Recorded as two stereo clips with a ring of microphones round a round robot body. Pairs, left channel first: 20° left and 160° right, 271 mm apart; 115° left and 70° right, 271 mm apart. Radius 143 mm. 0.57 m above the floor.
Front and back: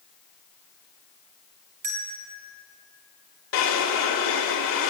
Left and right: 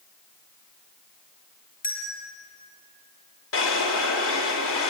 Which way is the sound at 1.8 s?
175° left.